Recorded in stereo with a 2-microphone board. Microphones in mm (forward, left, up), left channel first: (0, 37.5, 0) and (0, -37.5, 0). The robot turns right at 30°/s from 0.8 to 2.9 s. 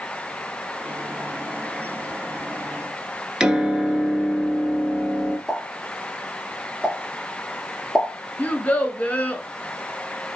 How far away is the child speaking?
About 0.9 m.